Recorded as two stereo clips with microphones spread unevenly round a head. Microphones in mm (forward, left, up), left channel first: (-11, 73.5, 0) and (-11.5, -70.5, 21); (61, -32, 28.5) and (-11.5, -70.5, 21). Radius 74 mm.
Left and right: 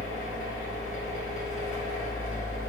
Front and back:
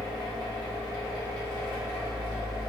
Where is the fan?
60° left, 1.0 m.